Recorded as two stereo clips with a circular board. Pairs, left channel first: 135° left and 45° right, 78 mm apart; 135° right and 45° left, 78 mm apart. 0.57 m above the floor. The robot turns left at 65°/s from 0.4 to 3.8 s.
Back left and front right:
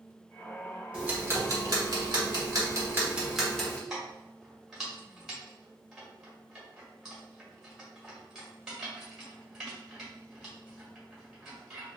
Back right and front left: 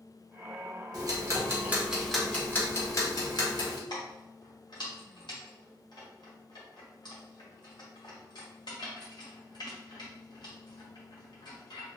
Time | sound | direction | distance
0.9 | ticking | 30° left | 1.2 m
3.9 | keys jangling | 130° right | 1.6 m